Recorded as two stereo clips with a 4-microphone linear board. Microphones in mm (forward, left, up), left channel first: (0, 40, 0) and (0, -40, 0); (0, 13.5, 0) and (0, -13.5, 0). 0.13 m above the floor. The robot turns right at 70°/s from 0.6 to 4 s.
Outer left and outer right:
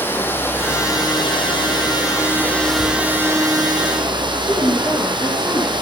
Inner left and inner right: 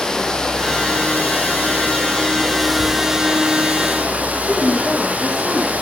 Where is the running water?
25° left, 3.5 m; by 5.8 s 95° right, 3.5 m.